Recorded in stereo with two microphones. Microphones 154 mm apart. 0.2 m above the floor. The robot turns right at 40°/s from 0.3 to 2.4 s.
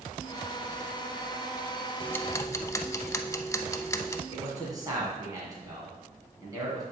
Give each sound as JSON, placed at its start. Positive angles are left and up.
{"t": 2.0, "sound": "ticking", "side_deg": 10, "distance_m": 0.5}
{"t": 4.3, "sound": "a man speaking", "side_deg": -25, "distance_m": 2.0}